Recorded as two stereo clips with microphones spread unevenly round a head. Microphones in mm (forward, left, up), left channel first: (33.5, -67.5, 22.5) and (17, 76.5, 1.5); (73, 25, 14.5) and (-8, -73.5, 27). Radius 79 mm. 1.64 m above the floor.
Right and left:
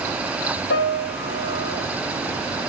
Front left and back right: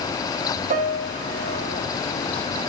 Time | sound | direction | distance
0.7 | a piano | 105° right | 0.7 m